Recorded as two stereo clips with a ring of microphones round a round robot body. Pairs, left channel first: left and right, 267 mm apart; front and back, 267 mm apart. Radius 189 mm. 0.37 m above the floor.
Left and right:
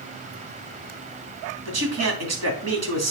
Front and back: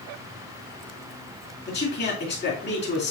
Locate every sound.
1.6 s a man speaking: 70° right, 3 m